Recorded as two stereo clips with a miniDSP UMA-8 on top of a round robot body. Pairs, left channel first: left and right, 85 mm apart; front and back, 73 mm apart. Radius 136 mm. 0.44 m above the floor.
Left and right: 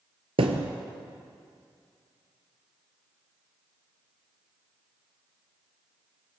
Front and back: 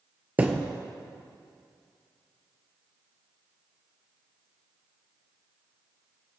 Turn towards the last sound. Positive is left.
turn(degrees=-110)